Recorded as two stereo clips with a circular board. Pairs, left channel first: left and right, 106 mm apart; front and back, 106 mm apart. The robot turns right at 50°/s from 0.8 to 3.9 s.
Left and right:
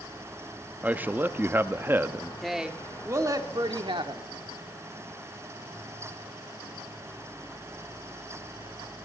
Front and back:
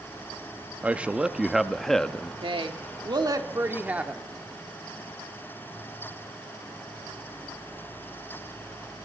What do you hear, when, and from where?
0.8 s a man speaking: 135° right, 0.6 m; by 2.3 s 65° right, 0.6 m
2.4 s a woman speaking: straight behind, 1.3 m; by 4.2 s 110° right, 1.3 m